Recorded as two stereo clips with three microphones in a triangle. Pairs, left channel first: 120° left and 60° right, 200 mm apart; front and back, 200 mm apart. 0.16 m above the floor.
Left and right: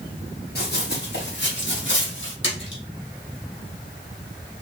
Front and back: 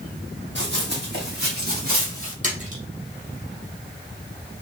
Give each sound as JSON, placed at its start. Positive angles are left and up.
{"t": 0.6, "sound": "running footsteps", "azimuth_deg": 155, "distance_m": 3.0}
{"t": 2.4, "sound": "a splash", "azimuth_deg": 130, "distance_m": 2.0}